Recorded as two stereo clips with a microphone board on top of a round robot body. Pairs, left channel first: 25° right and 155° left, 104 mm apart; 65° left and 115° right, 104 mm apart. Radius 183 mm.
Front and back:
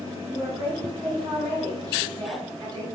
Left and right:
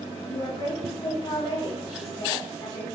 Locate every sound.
0.3 s a woman speaking: 115° left, 4.5 m